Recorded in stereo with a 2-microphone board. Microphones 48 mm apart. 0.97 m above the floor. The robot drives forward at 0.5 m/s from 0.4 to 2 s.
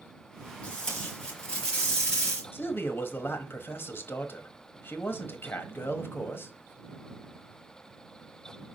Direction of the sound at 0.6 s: 20° left (ahead or behind).